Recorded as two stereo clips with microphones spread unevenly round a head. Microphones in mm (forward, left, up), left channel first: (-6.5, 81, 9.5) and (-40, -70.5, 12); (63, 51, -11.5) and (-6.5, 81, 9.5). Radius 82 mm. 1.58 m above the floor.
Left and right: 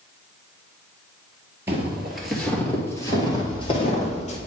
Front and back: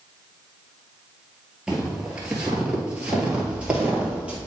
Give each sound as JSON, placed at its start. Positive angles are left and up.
{"t": 1.7, "sound": "footsteps", "azimuth_deg": -165, "distance_m": 1.8}